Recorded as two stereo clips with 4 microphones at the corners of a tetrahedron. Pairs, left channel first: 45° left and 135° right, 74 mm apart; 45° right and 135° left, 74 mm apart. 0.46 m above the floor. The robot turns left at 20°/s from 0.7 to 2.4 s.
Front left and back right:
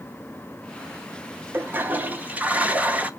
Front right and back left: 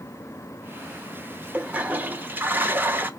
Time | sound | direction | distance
1.5 | a toilet flushing | 175° right | 0.8 m